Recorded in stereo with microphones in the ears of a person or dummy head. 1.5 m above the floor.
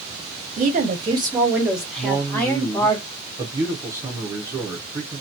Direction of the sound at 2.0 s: 15° right (ahead or behind).